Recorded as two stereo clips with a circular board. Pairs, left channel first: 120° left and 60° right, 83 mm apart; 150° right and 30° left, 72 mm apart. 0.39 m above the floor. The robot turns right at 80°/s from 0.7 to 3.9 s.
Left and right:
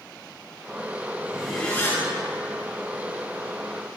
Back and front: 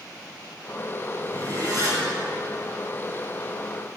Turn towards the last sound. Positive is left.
turn(degrees=-135)